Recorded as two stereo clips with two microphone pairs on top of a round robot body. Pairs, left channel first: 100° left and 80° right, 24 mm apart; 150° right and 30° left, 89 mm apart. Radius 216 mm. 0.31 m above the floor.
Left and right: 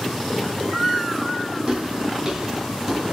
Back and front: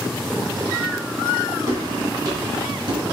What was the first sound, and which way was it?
Footsteps, 30° right.